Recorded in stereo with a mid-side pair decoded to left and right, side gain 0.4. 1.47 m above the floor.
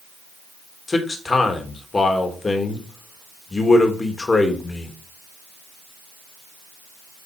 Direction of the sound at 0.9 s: 30° left.